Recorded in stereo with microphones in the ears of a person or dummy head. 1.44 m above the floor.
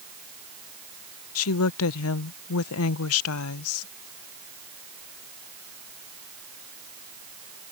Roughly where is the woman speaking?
Left.